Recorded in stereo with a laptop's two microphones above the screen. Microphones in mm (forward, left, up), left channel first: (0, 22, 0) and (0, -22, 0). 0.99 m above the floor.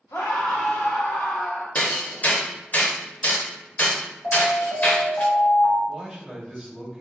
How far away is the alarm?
About 1.9 m.